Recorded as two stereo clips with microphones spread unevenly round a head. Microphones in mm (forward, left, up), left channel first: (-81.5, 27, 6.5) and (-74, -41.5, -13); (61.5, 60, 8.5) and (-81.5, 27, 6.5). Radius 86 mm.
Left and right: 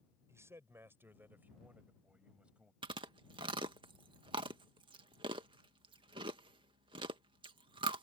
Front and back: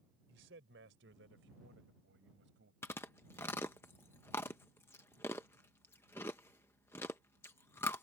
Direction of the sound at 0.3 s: 135° right.